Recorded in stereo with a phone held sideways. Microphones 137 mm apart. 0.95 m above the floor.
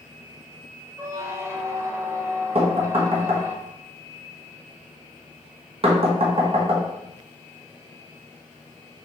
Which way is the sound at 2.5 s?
45° right (ahead or behind).